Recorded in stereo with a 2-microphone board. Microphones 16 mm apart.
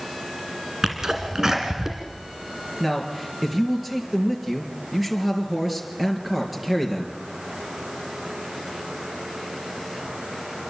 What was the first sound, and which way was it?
A sneeze, 35° right (ahead or behind).